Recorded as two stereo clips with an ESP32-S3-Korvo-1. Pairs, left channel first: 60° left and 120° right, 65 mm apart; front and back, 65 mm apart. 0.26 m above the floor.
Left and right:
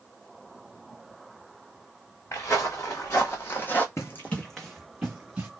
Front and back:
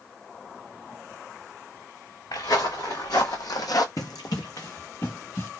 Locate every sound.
2.3 s footsteps: 15° left, 1.4 m; by 3.9 s straight ahead, 0.6 m
4.0 s running footsteps: 20° left, 0.6 m; by 5.5 s 45° right, 1.6 m